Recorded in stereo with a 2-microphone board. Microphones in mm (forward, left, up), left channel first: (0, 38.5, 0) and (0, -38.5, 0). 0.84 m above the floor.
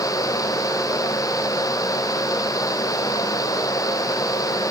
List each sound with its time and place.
Only background noise.